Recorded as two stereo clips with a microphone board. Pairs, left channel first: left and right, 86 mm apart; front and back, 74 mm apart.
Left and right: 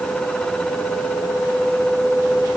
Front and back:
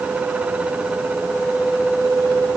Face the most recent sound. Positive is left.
No sound to turn to.